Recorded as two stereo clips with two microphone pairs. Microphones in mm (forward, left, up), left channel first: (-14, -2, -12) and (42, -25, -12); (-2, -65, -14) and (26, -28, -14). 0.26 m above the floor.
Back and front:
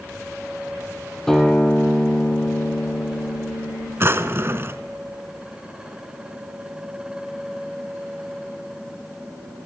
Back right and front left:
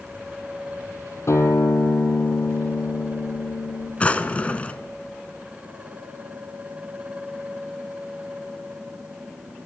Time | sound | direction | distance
1.3 | a guitar | 120° right | 2.5 m
4.0 | a drawer | 65° right | 1.1 m